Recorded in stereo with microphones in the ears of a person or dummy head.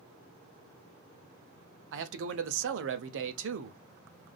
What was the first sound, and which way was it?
A man speaking, 65° right (ahead or behind).